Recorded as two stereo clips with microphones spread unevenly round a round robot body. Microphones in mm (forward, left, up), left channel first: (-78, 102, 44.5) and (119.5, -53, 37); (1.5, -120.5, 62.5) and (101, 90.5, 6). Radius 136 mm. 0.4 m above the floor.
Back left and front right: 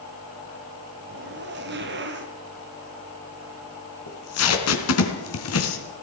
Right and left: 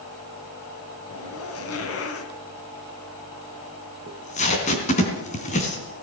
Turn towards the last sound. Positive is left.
turn(degrees=180)